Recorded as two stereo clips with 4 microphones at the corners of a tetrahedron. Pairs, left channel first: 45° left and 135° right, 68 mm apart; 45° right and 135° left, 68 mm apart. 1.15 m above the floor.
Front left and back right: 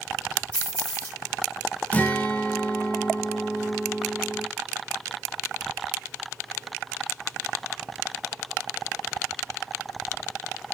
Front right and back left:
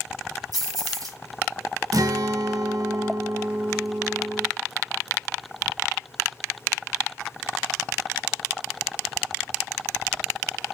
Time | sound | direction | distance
0.5 | keys jangling | 115° left | 1.8 m
1.9 | a guitar | 115° left | 0.5 m